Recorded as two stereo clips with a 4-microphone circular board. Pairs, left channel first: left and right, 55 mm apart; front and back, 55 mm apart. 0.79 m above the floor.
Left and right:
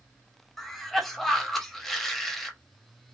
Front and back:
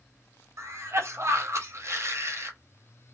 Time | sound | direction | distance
0.6 | a cough | 175° left | 0.9 m